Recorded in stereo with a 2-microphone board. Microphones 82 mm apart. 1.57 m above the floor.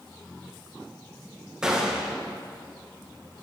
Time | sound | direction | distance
1.6 | a gunshot | 10° right (ahead or behind) | 1.5 m